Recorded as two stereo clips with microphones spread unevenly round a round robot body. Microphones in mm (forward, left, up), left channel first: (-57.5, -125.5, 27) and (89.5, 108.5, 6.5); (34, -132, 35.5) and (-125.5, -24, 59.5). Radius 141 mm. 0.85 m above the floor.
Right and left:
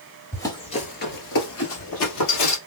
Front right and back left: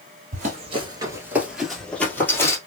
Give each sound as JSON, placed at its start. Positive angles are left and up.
{"t": 0.3, "sound": "running footsteps", "azimuth_deg": 160, "distance_m": 1.1}